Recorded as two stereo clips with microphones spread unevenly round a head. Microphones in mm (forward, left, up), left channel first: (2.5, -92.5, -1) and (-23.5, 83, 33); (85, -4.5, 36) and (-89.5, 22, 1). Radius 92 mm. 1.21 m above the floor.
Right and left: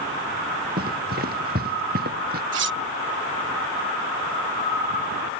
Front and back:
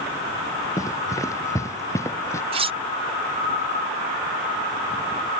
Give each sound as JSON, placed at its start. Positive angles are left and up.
{"t": 0.8, "sound": "running footsteps", "azimuth_deg": 60}
{"t": 2.5, "sound": "cutlery clinking", "azimuth_deg": 110}